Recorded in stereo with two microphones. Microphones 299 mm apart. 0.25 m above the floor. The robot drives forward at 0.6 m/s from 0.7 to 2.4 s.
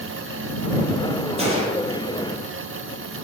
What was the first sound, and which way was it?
A gunshot, 20° right (ahead or behind).